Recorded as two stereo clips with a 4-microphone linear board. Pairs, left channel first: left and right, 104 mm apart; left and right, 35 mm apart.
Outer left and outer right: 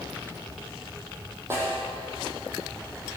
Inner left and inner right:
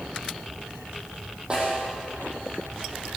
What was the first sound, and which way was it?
A snare drum, 25° right (ahead or behind).